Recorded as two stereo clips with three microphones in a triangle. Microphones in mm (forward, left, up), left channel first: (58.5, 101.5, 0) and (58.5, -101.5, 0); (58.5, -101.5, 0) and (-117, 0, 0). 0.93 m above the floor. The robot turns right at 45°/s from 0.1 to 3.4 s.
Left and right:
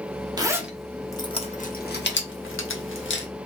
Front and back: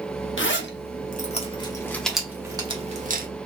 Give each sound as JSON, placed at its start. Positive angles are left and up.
{"t": 0.4, "sound": "a zipper", "azimuth_deg": -20, "distance_m": 0.9}